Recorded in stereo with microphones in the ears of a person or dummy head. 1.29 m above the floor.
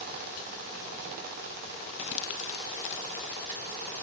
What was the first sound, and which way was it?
Crumpling, 70° left (ahead or behind).